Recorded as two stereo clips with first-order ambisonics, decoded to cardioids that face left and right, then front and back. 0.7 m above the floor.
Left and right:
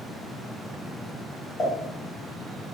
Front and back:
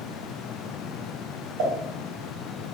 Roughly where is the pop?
Behind.